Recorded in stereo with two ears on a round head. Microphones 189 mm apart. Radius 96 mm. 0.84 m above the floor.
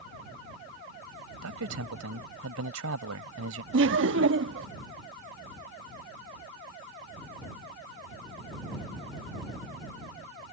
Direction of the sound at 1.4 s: 80° right.